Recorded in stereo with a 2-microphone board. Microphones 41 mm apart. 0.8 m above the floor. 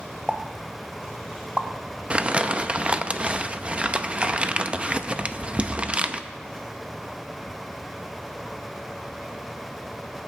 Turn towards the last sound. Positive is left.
turn(degrees=-25)  # may be behind; listen again after turning